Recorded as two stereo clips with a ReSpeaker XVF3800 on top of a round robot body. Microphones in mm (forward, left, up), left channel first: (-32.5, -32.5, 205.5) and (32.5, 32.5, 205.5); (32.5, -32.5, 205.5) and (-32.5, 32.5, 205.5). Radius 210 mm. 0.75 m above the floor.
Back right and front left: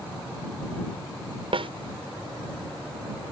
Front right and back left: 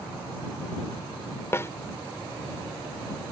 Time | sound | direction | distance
1.5 | a snare drum | 20° left | ?